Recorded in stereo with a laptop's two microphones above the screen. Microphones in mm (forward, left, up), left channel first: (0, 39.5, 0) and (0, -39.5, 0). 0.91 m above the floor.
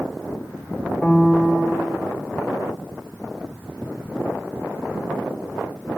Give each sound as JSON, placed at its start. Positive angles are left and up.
{"t": 1.0, "sound": "a piano", "side_deg": 0, "distance_m": 1.4}